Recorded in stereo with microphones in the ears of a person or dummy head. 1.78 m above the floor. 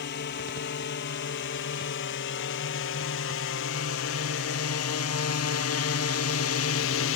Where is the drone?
55° left (ahead or behind); by 7.2 s 70° left (ahead or behind).